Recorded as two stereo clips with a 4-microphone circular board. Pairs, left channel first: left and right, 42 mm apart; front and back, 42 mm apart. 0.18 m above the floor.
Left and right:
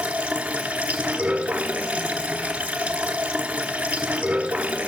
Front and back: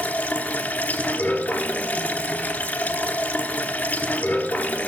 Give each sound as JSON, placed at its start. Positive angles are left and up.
{"t": 0.0, "sound": "running water", "azimuth_deg": -35, "distance_m": 1.1}